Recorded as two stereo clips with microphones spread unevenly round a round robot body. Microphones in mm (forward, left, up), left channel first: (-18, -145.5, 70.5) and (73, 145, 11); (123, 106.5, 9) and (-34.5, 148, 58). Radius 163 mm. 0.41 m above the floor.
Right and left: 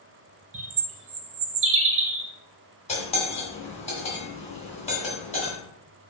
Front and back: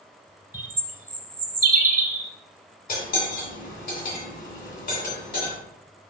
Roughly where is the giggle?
No giggle in this recording.